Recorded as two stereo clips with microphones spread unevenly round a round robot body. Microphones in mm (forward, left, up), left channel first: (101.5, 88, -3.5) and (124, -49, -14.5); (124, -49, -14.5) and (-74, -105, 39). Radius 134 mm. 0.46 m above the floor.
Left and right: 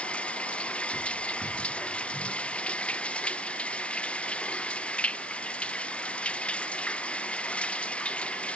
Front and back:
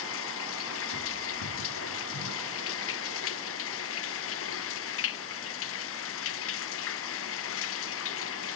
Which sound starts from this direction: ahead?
Running water, at 0.0 s.